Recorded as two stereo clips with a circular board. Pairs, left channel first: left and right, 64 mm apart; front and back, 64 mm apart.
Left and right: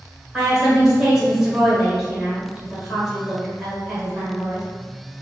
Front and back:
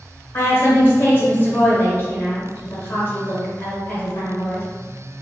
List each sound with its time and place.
0.3 s a woman speaking: 15° right, 1.5 m